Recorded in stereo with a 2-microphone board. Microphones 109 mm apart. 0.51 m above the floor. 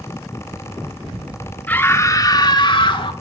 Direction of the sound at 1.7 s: 15° left (ahead or behind).